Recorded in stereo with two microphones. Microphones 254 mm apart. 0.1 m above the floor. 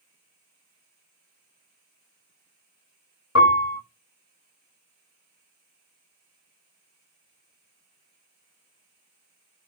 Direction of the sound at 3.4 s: 80° left.